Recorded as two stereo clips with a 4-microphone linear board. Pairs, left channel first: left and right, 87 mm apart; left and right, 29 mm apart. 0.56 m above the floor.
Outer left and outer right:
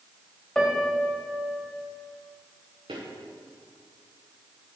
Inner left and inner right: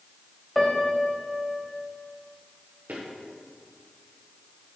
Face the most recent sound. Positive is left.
turn(degrees=-75)  # may be behind; listen again after turning